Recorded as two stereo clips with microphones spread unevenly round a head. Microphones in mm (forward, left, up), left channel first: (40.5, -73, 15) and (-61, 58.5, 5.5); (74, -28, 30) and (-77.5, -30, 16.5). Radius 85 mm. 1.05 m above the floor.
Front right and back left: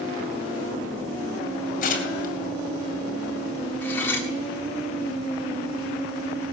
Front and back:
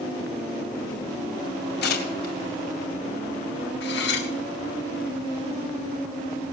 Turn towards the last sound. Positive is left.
turn(degrees=25)